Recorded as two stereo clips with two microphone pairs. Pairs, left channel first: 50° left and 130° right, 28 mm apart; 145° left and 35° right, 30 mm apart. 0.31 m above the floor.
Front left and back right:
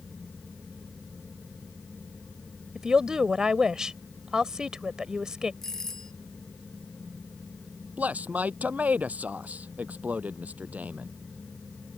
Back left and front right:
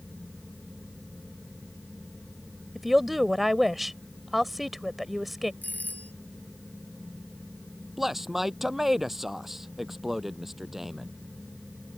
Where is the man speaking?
115° right.